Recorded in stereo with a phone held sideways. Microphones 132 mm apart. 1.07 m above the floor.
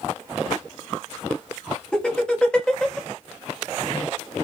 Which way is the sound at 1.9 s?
5° left (ahead or behind).